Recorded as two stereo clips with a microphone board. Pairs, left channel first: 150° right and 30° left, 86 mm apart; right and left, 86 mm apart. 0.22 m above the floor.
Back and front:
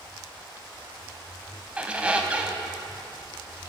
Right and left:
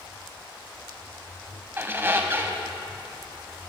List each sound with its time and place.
1.8 s a squeak: 85° left, 0.5 m